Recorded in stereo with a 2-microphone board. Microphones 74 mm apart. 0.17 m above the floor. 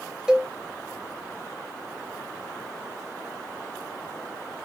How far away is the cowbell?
About 0.6 m.